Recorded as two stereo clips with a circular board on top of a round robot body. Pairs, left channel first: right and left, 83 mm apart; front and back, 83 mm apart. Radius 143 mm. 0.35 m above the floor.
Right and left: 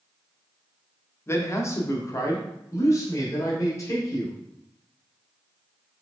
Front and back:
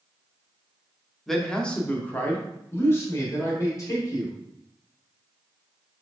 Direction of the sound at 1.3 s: 85° right.